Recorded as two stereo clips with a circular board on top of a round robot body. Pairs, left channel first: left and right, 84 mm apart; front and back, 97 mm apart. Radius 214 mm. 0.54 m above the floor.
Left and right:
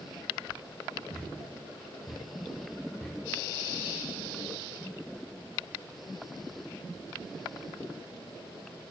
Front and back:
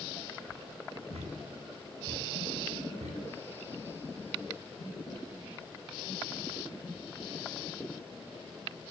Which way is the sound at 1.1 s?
175° left.